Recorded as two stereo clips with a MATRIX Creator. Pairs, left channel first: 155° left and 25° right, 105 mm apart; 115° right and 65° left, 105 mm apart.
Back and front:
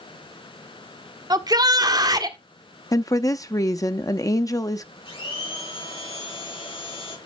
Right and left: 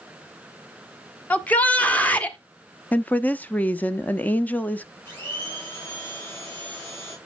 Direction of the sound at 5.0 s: 175° left.